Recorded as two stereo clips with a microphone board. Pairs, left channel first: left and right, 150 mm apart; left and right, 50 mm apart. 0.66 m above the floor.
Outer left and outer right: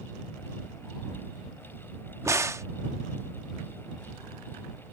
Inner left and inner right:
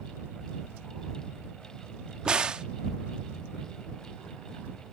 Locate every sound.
2.2 s a crack: 20° right (ahead or behind)